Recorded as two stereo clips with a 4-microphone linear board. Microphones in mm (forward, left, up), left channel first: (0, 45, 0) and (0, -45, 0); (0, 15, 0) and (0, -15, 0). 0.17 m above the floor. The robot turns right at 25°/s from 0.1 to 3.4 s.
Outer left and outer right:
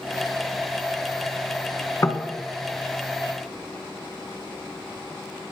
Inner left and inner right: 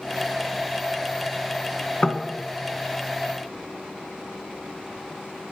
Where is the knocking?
35° left (ahead or behind), 1.0 m.